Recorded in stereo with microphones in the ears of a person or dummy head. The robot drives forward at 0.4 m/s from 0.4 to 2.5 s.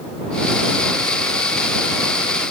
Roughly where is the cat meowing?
I don't hear a cat meowing.